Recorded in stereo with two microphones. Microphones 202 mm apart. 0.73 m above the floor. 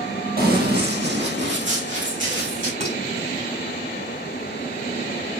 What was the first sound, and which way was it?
Running footsteps, 50° right (ahead or behind).